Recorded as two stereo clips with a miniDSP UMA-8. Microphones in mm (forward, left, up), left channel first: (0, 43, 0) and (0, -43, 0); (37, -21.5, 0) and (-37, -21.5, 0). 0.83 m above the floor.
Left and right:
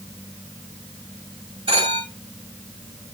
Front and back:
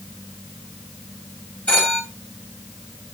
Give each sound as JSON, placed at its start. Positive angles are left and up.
{"t": 1.7, "sound": "a phone ringing", "azimuth_deg": -75, "distance_m": 6.5}